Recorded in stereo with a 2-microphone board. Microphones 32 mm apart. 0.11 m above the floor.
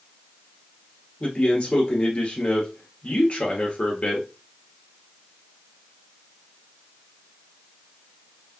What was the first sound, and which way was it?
A man speaking, 40° left (ahead or behind).